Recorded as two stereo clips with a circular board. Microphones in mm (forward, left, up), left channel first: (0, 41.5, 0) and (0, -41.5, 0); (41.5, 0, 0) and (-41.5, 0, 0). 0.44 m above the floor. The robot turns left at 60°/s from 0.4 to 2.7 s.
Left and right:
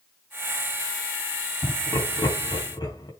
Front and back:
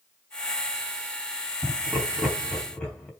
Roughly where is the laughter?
Behind left.